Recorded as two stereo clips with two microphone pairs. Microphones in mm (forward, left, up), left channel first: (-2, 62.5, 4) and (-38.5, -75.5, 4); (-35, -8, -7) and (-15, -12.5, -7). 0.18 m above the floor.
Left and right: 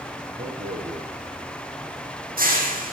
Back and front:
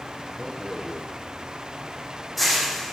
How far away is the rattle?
About 4.5 m.